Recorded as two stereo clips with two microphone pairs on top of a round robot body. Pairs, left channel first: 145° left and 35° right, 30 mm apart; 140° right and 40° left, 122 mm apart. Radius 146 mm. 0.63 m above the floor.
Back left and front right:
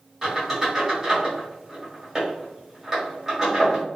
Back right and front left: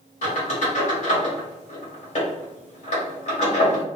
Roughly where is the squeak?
Behind right.